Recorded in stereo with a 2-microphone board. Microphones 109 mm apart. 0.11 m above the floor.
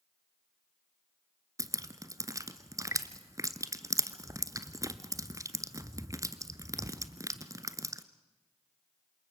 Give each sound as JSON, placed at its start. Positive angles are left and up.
{"t": 1.6, "sound": "dripping", "side_deg": -30, "distance_m": 0.9}